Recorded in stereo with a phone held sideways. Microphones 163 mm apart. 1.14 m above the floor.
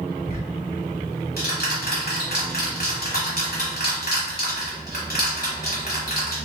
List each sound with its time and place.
0.2 s ticking: 70° left (ahead or behind), 1.5 m